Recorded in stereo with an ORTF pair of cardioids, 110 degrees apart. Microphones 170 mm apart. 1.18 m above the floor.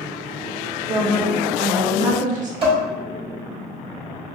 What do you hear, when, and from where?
0.9 s a woman speaking: 50° right, 1.0 m
2.6 s dishes clattering: 30° right, 2.0 m